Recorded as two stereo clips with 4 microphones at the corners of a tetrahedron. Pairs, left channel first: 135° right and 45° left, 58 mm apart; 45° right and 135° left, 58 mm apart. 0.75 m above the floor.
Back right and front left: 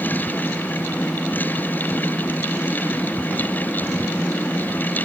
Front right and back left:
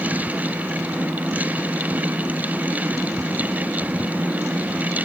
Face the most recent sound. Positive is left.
No sound to turn to.